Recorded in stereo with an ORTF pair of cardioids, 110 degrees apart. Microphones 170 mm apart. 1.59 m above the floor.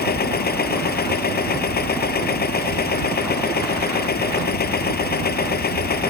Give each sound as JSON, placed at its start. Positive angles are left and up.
{"t": 0.0, "sound": "a machine running", "azimuth_deg": 60}